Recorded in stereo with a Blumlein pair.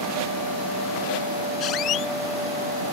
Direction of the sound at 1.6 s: 35° left.